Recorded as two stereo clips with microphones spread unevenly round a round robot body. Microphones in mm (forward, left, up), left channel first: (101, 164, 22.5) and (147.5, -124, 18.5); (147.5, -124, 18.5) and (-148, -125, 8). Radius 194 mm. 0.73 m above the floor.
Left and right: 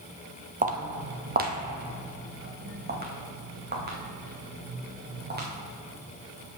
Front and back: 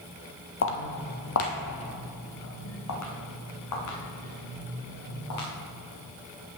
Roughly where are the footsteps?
Ahead right.